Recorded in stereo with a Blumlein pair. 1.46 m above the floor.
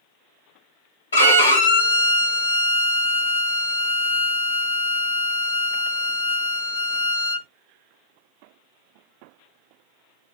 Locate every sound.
1.1 s a violin: 70° left, 1.1 m